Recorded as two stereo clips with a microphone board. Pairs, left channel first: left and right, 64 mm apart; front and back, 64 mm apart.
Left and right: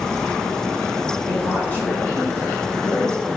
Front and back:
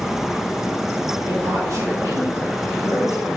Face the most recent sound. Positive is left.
turn(degrees=145)